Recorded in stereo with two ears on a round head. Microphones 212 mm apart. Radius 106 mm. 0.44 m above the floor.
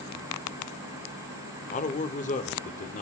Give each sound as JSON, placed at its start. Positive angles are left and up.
{"t": 1.7, "sound": "a man speaking", "side_deg": 30, "distance_m": 1.0}